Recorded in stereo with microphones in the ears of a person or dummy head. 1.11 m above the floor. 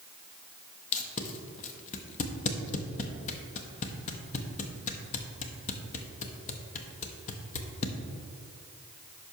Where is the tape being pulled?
35° left (ahead or behind), 0.7 m.